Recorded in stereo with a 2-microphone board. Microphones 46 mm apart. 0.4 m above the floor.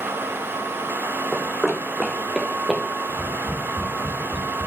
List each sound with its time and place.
1.3 s running footsteps: 10° right (ahead or behind), 1.4 m; by 2.8 s 15° right (ahead or behind), 2.5 m
3.1 s tapping: 15° left (ahead or behind), 4.5 m